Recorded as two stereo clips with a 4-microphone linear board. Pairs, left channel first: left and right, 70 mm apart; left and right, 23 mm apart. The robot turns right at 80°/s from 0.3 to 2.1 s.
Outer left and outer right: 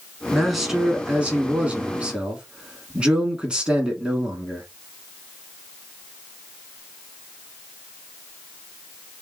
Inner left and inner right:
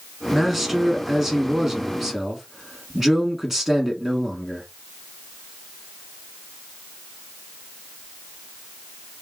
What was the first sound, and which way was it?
A man speaking, 5° left (ahead or behind).